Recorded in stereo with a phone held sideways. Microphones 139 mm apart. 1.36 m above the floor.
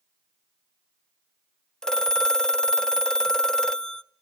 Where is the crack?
I don't hear a crack.